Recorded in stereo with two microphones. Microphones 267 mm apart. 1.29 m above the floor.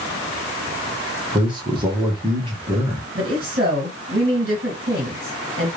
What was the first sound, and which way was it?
A man speaking, 15° right (ahead or behind).